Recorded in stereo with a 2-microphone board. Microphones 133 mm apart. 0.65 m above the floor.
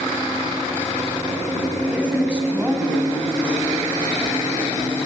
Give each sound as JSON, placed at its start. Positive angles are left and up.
{"t": 1.9, "sound": "a woman speaking", "side_deg": -10, "distance_m": 4.5}